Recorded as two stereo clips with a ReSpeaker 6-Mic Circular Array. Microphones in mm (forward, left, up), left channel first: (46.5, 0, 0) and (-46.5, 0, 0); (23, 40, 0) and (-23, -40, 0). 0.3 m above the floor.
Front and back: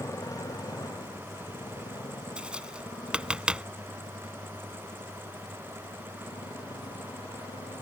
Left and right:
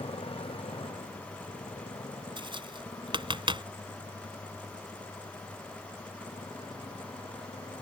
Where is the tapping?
100° right.